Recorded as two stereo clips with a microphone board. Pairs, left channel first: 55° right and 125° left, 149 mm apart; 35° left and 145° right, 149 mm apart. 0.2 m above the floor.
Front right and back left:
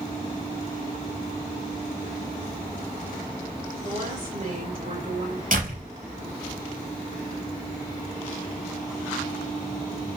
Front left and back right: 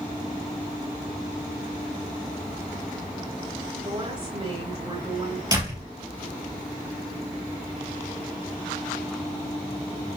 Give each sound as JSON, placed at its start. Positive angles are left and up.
{"t": 3.8, "sound": "a woman speaking", "azimuth_deg": 165, "distance_m": 4.5}
{"t": 5.5, "sound": "a door slam", "azimuth_deg": 150, "distance_m": 3.5}